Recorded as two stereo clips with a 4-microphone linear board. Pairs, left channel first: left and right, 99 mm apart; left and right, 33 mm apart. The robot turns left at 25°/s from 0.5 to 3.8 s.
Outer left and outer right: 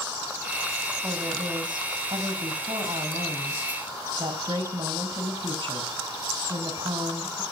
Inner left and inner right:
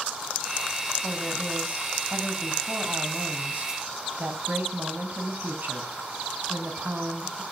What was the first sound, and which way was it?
A woman speaking, 40° right.